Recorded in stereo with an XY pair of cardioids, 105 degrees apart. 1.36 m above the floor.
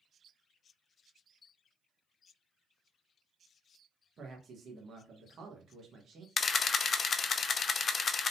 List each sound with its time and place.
4.2 s a man speaking: 50° right, 1.2 m
6.4 s a camera shutter: 40° left, 0.6 m